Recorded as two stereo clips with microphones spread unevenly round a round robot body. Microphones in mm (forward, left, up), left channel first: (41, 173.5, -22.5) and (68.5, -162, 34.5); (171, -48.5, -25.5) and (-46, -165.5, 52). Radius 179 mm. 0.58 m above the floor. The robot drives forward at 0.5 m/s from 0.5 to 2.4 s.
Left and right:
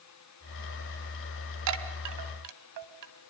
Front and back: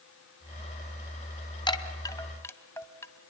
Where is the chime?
45° right, 2.5 m; by 3.1 s 50° right, 2 m.